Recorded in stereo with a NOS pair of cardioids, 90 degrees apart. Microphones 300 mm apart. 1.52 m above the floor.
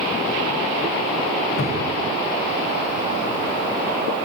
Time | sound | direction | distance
1.6 | a cupboard door | 45° left | 2.5 m